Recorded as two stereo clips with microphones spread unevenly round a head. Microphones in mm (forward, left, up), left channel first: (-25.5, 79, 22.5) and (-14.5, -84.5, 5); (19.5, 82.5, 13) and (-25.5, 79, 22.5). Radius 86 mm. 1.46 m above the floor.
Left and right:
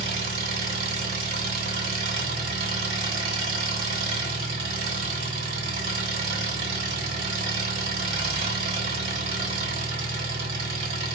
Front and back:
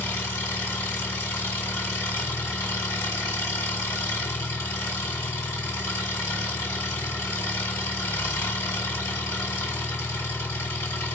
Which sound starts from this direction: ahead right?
An engine running, at 0.0 s.